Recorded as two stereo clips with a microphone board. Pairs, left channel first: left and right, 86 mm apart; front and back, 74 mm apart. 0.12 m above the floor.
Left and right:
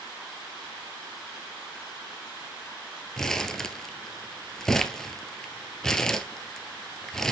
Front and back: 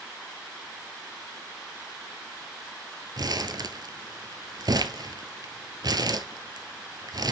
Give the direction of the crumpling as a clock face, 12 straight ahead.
6 o'clock.